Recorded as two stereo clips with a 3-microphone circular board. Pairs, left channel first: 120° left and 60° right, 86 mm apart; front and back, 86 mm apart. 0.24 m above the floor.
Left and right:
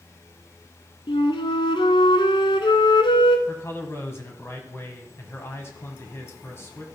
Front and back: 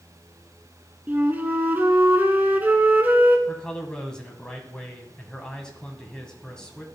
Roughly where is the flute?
Left.